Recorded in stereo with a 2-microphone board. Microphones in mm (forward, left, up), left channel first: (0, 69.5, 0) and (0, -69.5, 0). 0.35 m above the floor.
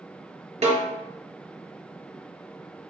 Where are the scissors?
I don't hear scissors.